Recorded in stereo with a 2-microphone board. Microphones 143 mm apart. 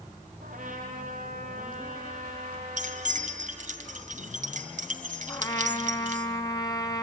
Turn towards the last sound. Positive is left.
turn(degrees=25)  # may be behind; listen again after turning